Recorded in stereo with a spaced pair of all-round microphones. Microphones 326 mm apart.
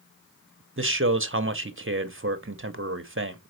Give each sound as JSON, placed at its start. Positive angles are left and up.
{"t": 0.8, "sound": "a man speaking", "side_deg": -40, "distance_m": 0.9}